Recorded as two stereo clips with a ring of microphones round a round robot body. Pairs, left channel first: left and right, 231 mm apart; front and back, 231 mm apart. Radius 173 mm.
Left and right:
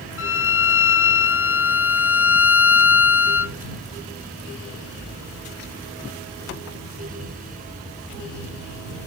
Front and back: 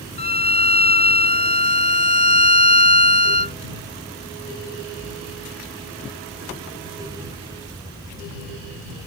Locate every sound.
0.2 s a violin: 65° left